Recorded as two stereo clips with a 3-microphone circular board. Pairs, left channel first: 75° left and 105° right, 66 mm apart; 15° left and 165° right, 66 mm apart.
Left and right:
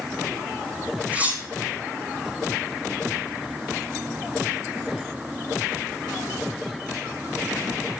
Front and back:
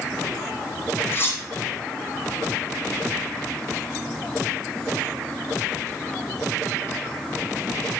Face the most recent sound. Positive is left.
turn(degrees=-35)